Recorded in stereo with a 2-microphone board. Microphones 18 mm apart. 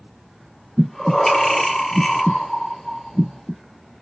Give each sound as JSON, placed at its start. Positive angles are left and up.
{"t": 0.8, "sound": "breathing", "side_deg": 20, "distance_m": 0.9}